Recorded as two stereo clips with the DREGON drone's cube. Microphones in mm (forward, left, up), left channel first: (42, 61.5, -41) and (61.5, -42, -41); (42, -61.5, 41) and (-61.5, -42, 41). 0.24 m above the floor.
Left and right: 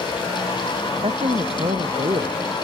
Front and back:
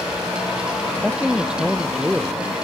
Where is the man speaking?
110° right.